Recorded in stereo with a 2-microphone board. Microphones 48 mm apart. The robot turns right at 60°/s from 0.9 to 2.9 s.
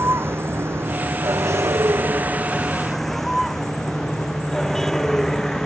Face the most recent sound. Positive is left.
turn(degrees=10)  # may be behind; listen again after turning